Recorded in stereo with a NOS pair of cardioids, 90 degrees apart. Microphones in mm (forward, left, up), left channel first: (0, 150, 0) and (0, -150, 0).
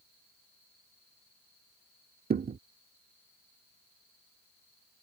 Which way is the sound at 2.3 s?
30° right.